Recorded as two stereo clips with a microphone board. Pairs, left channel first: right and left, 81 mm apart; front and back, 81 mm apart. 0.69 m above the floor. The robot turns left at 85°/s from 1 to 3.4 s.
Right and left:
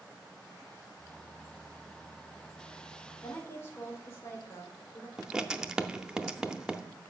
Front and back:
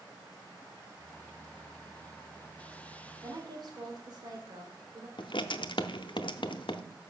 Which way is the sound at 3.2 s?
135° right.